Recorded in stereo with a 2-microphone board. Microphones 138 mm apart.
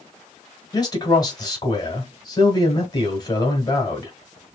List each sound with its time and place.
0.7 s a man speaking: 30° left (ahead or behind), 1.7 m